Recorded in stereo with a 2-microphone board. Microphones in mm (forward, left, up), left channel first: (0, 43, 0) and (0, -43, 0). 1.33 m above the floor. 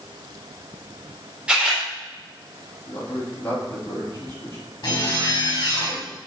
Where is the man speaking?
25° left (ahead or behind), 3 m.